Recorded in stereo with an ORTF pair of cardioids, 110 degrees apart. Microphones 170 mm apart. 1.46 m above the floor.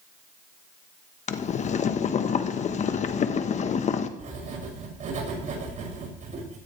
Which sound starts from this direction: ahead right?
Writing, at 4.2 s.